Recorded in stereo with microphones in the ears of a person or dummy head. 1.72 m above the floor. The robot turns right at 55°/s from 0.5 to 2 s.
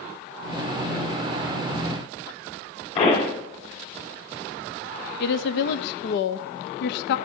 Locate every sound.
3.0 s a pop: 35° left (ahead or behind), 3 m
5.2 s a woman speaking: 75° left (ahead or behind), 0.6 m